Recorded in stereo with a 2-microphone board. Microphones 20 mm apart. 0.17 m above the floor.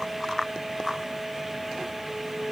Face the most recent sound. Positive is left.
No sound to turn to.